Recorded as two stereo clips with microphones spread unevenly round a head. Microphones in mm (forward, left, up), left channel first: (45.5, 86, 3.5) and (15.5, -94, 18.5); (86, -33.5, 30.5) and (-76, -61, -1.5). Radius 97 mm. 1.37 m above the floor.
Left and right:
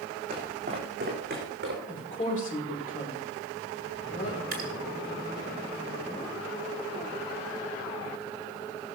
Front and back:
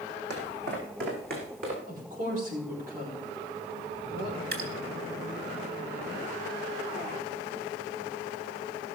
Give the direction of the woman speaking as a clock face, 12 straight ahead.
7 o'clock.